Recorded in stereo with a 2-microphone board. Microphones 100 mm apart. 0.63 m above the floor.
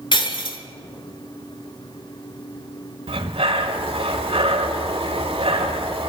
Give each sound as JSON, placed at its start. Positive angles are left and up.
{"t": 0.1, "sound": "breaking glass", "side_deg": 55, "distance_m": 1.0}
{"t": 3.1, "sound": "breathing", "side_deg": -75, "distance_m": 1.4}